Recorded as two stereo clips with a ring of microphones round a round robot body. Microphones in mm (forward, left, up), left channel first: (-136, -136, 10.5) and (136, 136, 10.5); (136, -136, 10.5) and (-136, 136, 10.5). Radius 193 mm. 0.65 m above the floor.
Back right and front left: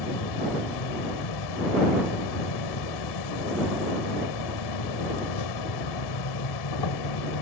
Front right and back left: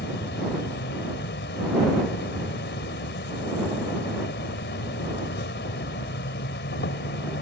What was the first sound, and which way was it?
An insect, 110° right.